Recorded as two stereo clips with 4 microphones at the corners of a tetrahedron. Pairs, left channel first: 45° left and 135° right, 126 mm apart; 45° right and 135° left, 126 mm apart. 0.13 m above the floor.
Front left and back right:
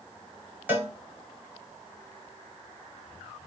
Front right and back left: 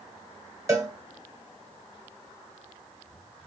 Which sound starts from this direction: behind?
A cowbell, at 0.7 s.